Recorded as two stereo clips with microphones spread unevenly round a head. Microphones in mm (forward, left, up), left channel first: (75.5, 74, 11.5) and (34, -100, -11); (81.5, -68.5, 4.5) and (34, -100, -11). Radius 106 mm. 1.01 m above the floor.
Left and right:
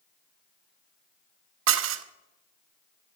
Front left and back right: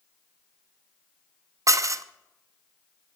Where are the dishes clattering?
115° right, 0.7 m.